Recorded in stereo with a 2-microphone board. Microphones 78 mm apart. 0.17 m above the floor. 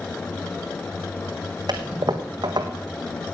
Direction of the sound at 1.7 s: 55° right (ahead or behind).